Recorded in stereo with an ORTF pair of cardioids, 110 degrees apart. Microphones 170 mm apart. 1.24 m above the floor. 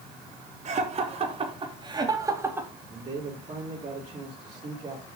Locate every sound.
0.7 s laughter: 45° right, 3.5 m; by 2.7 s 10° right, 2.5 m
2.9 s a man speaking: 35° right, 5.5 m